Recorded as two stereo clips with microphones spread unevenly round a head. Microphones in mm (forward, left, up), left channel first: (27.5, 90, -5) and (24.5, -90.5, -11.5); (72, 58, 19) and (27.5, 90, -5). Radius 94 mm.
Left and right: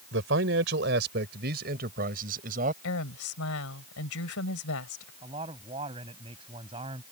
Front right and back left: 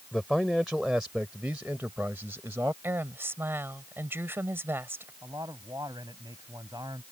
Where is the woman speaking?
95° left.